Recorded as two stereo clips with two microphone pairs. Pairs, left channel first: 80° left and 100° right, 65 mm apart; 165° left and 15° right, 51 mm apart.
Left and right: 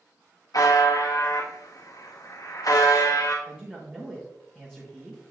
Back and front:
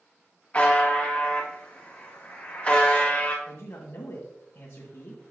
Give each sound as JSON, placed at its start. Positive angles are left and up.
{"t": 0.5, "sound": "a buzzer", "azimuth_deg": 100, "distance_m": 1.7}
{"t": 3.5, "sound": "a man speaking", "azimuth_deg": -165, "distance_m": 1.6}